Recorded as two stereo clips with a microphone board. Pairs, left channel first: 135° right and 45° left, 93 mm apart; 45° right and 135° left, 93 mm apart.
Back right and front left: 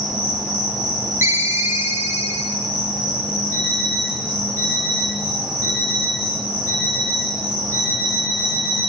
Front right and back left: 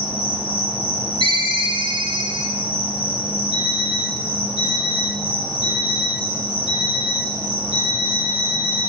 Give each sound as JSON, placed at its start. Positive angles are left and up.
{"t": 0.0, "sound": "an insect", "azimuth_deg": -40, "distance_m": 8.0}
{"t": 1.2, "sound": "a ringtone", "azimuth_deg": 105, "distance_m": 1.4}
{"t": 3.5, "sound": "an alarm clock", "azimuth_deg": -20, "distance_m": 6.0}